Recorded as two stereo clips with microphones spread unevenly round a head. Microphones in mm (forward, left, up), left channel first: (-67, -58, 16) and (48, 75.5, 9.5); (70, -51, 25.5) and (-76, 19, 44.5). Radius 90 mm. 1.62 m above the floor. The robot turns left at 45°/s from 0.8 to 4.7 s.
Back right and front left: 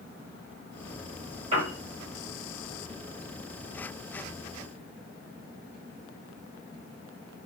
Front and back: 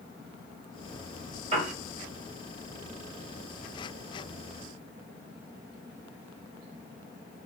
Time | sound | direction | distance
1.5 | a piano | 105° left | 2 m